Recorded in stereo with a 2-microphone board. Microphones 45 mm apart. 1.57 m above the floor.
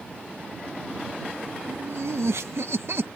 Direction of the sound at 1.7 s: 80° right.